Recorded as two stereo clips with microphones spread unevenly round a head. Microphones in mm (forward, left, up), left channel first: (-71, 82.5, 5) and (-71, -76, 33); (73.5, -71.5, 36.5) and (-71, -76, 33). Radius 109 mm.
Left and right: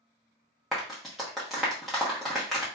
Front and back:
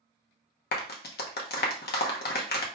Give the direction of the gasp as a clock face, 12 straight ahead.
No gasp in this recording.